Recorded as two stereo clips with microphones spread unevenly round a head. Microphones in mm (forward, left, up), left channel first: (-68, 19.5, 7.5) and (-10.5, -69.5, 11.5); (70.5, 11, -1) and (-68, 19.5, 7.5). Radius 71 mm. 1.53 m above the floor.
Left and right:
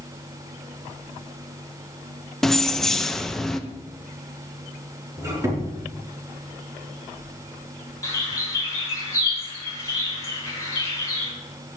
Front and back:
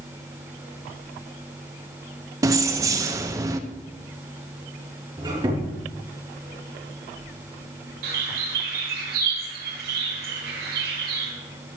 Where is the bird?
175° right, 5.5 m.